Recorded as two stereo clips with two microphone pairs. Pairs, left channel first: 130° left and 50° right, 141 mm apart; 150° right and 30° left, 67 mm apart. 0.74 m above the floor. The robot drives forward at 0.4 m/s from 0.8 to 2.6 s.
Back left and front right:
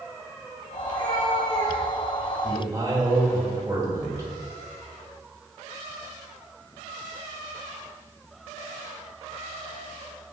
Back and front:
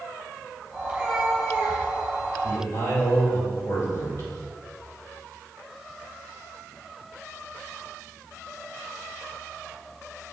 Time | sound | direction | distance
0.8 | a cat meowing | 105° left | 2.0 m
2.4 | a man speaking | 115° right | 2.5 m